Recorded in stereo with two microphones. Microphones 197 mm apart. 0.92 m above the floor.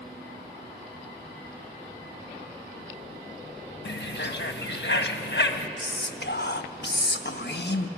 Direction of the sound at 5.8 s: 60° left (ahead or behind).